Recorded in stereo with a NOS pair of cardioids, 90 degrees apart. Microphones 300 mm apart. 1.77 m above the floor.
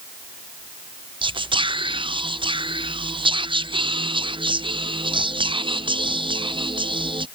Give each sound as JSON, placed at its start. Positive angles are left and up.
{"t": 1.2, "sound": "whispering", "azimuth_deg": -15}